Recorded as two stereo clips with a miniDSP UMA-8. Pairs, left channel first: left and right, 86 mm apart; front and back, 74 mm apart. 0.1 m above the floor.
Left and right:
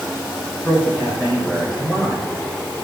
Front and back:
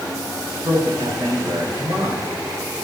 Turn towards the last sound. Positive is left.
turn(degrees=160)